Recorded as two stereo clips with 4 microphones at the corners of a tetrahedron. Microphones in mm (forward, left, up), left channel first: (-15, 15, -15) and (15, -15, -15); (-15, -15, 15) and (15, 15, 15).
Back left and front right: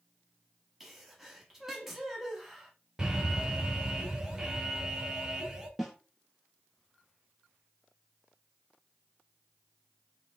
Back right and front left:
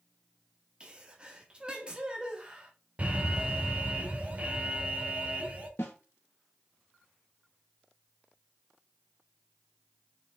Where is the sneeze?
25° left, 1.0 m.